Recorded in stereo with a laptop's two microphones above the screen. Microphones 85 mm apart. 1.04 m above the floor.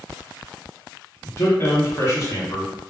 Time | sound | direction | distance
1.2 | a man speaking | 35° left (ahead or behind) | 0.9 m